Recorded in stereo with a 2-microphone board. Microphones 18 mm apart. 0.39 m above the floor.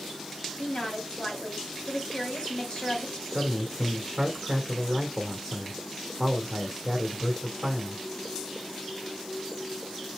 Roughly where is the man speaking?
Centre.